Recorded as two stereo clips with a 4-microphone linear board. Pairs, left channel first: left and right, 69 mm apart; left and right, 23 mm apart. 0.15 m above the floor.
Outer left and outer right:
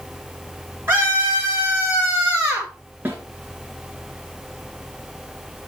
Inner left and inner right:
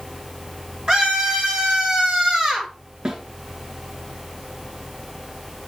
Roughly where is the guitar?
No guitar in this recording.